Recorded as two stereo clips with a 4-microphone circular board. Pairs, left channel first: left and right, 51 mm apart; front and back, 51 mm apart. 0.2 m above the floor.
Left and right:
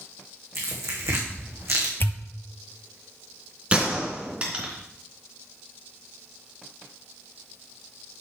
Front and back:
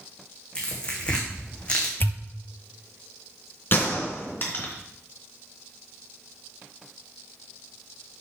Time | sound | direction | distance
0.6 | tearing paper | 70° right | 3 m
2.0 | a pop | 45° left | 0.7 m
3.7 | a gunshot | 35° right | 2.5 m